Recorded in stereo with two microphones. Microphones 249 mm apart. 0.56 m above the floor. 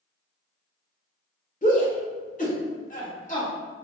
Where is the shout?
30° left (ahead or behind), 1.5 m.